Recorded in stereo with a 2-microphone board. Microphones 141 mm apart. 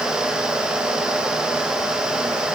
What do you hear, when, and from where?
Only background noise.